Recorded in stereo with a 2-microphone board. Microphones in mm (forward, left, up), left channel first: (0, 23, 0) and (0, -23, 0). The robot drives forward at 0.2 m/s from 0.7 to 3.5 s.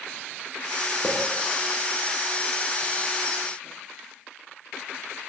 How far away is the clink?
About 1.1 m.